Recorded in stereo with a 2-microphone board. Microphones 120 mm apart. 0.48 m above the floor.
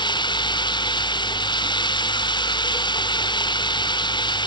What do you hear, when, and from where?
0.0 s running water: 40° left (ahead or behind)